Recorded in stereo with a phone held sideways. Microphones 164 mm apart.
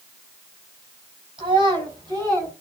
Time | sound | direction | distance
1.4 | a child speaking | 30° right (ahead or behind) | 6.5 m